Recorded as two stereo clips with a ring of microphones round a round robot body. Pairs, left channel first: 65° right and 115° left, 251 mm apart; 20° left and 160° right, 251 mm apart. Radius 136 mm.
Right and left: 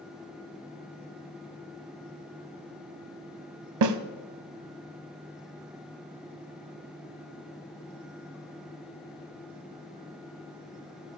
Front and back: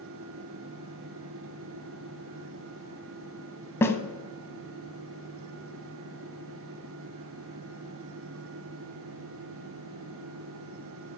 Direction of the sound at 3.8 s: 105° left.